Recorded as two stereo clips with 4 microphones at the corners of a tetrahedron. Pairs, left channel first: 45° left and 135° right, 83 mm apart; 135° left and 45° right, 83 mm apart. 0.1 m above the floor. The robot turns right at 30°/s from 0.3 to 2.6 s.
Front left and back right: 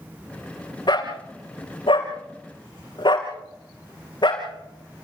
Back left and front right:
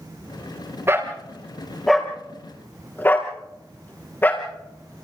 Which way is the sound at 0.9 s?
20° left.